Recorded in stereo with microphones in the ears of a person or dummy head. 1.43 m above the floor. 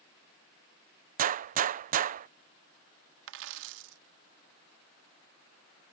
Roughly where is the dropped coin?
Right.